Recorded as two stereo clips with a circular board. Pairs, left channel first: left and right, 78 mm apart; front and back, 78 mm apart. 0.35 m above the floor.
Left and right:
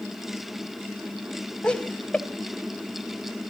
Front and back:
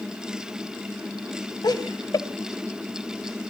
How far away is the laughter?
About 2 m.